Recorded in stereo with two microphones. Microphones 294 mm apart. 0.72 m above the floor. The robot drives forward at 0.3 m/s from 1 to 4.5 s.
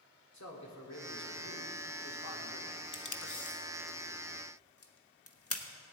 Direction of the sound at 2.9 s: 80° left.